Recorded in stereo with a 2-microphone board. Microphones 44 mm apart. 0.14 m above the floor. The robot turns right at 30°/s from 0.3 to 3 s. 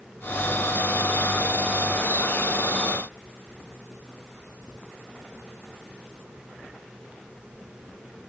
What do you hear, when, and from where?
Only background noise.